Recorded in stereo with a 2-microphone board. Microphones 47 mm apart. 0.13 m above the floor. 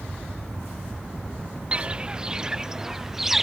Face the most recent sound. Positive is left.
turn(degrees=-5)  # may be behind; listen again after turning